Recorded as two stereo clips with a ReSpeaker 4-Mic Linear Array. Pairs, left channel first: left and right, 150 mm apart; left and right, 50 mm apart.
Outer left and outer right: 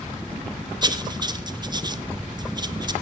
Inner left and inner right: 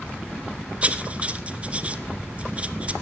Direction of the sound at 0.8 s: 30° right (ahead or behind).